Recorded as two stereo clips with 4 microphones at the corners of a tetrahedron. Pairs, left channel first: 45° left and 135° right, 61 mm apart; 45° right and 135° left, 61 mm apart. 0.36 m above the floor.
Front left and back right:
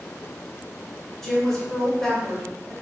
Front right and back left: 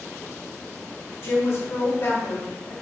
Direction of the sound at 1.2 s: 35° right.